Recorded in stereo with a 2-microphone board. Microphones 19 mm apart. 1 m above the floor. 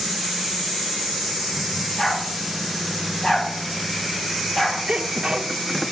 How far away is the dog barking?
About 7 m.